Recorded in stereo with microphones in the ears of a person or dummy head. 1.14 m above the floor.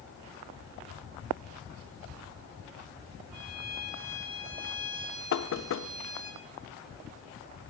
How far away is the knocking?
About 1.2 m.